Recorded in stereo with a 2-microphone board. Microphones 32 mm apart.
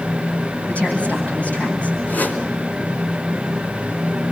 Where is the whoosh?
70° left (ahead or behind), 3.5 m.